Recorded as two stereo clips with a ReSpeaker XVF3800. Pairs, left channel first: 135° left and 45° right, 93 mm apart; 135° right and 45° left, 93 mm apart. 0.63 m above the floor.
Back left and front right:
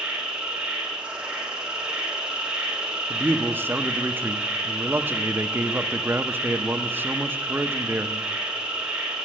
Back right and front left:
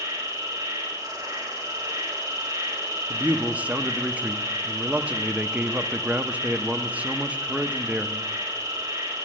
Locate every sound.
0.0 s an insect: 30° left, 2 m
3.1 s a man speaking: 10° right, 0.6 m